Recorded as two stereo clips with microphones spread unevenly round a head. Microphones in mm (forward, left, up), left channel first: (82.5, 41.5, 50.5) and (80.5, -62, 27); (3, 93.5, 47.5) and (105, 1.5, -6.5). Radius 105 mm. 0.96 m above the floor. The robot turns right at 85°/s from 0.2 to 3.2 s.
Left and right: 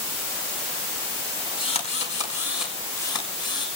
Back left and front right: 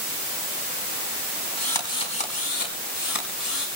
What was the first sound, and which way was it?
A drill, 50° left.